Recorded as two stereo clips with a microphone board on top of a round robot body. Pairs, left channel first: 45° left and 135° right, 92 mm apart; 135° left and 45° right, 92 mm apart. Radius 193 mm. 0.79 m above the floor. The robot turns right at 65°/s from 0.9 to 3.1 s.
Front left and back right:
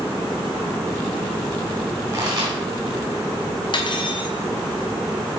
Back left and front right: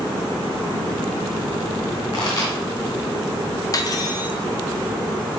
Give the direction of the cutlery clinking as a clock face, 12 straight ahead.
9 o'clock.